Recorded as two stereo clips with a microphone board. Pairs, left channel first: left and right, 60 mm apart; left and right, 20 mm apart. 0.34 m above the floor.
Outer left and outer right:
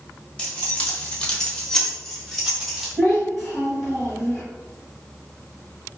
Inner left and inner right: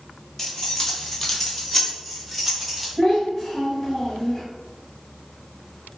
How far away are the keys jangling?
About 0.8 m.